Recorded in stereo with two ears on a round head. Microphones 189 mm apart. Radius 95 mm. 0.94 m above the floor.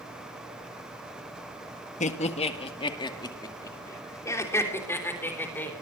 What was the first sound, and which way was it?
Laughter, 35° left (ahead or behind).